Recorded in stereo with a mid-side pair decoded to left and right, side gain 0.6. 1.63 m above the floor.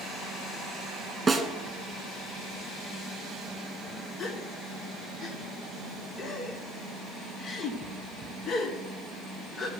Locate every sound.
1.3 s a snare drum: 20° right, 1.7 m
4.2 s a gasp: 40° left, 1.3 m